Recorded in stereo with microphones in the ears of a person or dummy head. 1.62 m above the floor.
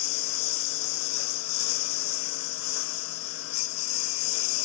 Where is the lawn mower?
75° left (ahead or behind); by 4.7 s 80° left.